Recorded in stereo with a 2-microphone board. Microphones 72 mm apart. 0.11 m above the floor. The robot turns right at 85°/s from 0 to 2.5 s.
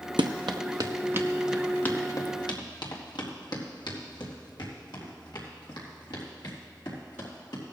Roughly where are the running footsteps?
Right.